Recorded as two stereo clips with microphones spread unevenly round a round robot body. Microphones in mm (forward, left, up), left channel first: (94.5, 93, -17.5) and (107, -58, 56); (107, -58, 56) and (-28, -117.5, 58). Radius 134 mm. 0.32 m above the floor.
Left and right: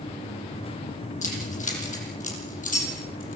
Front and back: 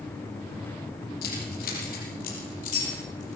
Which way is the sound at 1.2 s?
60° left.